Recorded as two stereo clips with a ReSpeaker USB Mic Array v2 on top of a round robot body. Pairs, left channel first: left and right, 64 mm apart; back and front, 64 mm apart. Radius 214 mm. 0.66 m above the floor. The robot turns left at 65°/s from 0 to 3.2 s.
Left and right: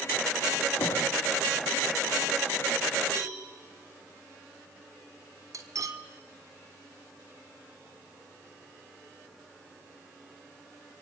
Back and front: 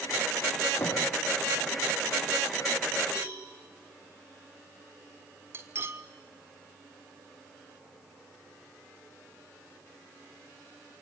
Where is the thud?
125° left, 8 m; by 1.0 s 110° left, 8 m.